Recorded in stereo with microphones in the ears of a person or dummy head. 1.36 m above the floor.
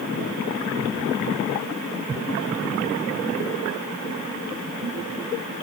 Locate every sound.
Only background noise.